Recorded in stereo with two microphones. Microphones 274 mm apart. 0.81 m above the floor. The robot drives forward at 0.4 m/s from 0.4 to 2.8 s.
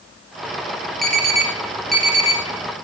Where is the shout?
I don't hear a shout.